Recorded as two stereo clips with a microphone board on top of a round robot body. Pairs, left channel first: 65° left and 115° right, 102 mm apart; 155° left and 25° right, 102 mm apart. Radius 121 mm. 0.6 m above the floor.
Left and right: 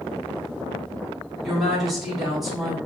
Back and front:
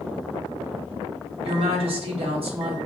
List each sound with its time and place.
1.4 s a woman speaking: 25° right, 1.6 m